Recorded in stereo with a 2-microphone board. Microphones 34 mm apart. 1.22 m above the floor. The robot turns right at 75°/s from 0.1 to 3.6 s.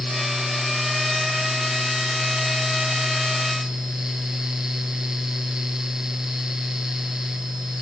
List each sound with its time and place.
Only background noise.